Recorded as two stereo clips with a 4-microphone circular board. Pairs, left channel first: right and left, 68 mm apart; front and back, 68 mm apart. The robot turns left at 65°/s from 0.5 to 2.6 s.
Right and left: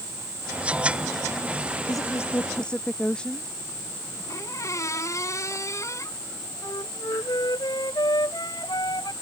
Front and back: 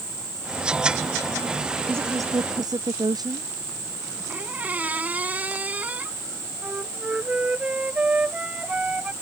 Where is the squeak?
115° right.